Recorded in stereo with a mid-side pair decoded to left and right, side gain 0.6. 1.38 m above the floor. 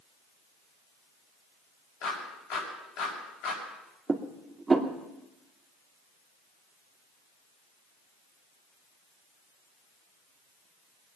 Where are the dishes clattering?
15° right, 2.5 m.